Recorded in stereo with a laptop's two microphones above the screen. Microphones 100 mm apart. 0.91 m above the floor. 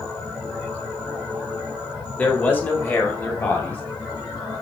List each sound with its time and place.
2.2 s a man speaking: 20° left (ahead or behind), 2.5 m; by 3.8 s 25° left (ahead or behind), 3.5 m